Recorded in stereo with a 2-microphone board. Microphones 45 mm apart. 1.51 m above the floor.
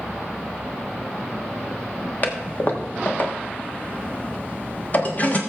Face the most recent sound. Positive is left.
turn(degrees=35)  # may be behind; listen again after turning